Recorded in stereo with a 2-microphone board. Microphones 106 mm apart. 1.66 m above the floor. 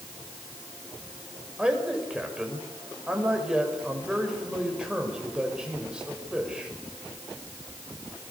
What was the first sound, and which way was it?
A man speaking, 10° right (ahead or behind).